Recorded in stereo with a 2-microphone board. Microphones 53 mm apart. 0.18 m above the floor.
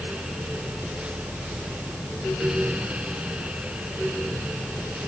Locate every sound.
Only background noise.